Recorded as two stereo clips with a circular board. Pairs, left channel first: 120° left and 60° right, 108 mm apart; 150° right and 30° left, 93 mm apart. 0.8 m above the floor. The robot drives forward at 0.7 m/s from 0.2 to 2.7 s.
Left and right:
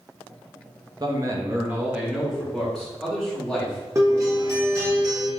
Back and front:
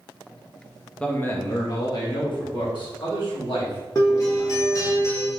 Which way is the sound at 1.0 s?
80° right.